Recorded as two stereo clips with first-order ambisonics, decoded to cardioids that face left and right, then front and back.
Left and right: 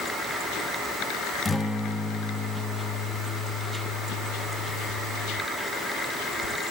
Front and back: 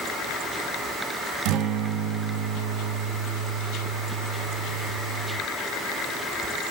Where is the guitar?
170° left, 0.8 m.